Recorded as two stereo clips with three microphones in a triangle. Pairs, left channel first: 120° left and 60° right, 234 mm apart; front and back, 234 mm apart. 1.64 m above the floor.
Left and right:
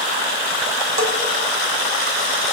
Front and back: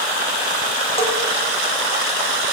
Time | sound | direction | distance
1.0 | a bell | 65° right | 3.5 m